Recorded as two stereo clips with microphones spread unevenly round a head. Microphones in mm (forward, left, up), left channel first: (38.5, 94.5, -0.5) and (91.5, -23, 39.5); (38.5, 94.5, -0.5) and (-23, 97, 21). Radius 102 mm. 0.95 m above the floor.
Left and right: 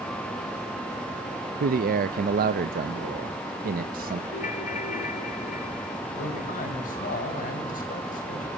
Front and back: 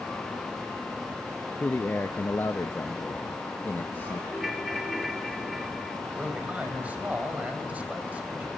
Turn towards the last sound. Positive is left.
turn(degrees=110)